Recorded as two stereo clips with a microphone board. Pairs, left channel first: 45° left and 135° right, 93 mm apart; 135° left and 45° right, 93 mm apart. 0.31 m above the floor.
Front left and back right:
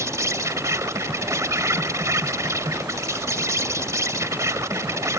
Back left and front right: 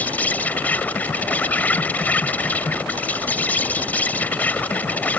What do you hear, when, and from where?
0.0 s an insect: 165° right